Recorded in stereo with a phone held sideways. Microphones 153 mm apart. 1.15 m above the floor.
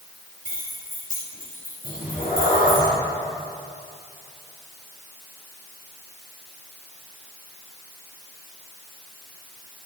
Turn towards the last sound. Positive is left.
turn(degrees=70)  # may be behind; listen again after turning